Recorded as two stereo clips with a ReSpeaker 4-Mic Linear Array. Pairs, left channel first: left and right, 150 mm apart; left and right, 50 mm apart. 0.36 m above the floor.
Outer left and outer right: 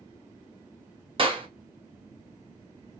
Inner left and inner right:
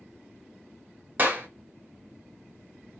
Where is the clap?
35° right (ahead or behind), 0.8 m.